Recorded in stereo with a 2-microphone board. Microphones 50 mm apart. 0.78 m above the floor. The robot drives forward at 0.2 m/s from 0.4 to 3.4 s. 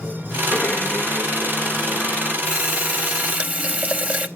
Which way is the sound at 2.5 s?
25° right (ahead or behind).